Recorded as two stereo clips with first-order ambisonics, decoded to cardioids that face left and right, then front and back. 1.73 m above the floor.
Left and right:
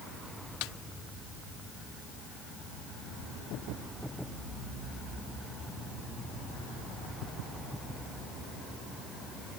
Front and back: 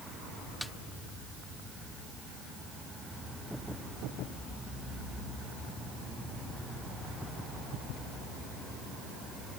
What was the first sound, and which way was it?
A snare drum, 85° left.